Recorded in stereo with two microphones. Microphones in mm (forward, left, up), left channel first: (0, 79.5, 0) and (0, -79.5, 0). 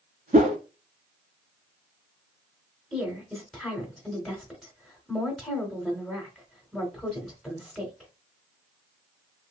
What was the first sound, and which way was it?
A whoosh, 55° right (ahead or behind).